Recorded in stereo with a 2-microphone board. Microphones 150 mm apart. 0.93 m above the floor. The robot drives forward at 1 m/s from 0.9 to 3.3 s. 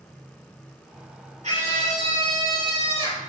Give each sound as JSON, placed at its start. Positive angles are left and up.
{"t": 1.4, "sound": "a scream", "side_deg": -55, "distance_m": 3.5}